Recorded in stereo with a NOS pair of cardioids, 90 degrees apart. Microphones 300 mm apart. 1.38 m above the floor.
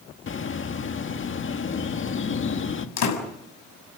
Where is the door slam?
65° left, 6.5 m.